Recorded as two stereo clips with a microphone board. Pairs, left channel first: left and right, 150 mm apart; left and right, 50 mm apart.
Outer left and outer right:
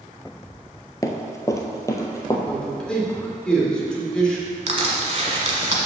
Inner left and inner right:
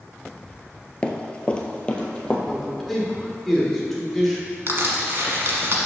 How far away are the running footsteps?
About 0.7 m.